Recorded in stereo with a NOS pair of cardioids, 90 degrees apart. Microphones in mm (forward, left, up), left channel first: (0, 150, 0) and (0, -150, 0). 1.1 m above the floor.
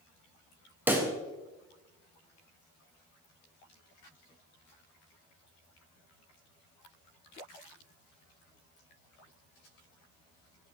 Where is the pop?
5° right, 1.3 m.